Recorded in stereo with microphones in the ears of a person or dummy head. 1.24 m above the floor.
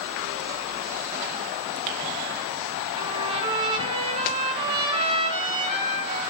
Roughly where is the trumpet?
Right.